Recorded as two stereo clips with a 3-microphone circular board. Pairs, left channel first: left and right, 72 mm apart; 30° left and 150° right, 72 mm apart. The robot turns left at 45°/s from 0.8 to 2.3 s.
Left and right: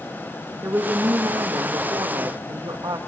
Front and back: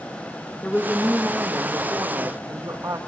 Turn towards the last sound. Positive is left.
turn(degrees=-105)